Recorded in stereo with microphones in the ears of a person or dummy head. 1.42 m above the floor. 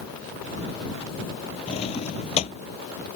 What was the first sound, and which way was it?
A drawer, 30° left (ahead or behind).